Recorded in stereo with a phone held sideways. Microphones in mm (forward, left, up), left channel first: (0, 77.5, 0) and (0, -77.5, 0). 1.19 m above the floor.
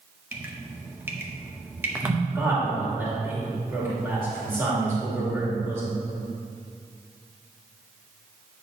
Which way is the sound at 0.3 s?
15° right (ahead or behind).